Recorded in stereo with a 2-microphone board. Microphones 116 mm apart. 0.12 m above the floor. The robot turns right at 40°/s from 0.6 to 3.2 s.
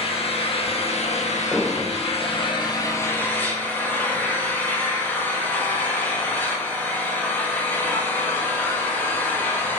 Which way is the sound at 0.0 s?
60° left.